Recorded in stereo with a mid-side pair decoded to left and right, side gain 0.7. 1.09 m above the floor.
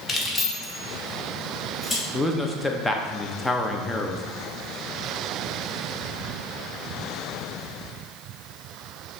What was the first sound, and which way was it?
Keys jangling, 25° left.